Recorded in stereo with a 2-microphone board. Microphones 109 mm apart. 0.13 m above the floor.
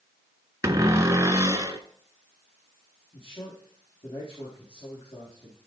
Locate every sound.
0.6 s a cupboard door: 30° right (ahead or behind), 1.0 m
3.1 s a man speaking: 60° left (ahead or behind), 4.5 m